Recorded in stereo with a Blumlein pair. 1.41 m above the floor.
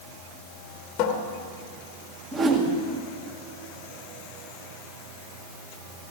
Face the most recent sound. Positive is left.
turn(degrees=-25)